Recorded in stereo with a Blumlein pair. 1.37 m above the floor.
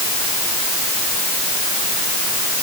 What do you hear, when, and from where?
Only background noise.